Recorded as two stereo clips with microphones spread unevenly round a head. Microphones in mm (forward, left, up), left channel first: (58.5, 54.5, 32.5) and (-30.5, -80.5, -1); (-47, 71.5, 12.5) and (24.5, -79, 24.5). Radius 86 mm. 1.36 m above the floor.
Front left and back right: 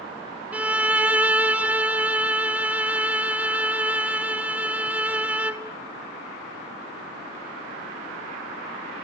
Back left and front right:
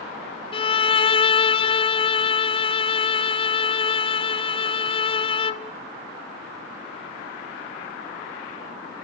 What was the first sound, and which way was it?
A violin, 165° left.